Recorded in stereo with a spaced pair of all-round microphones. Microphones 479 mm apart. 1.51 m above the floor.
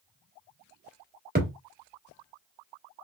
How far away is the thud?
About 1.5 m.